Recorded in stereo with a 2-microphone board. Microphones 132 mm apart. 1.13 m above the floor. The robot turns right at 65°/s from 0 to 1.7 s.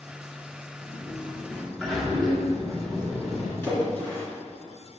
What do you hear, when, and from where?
0.8 s a sliding door: 120° left, 2.5 m; by 3.5 s straight behind, 2.5 m
3.6 s a splash: 15° left (ahead or behind), 3.5 m